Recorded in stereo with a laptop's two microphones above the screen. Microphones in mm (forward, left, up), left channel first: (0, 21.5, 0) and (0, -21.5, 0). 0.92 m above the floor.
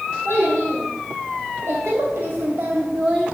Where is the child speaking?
85° right, 2.5 m; by 3.3 s 5° right (ahead or behind), 0.5 m.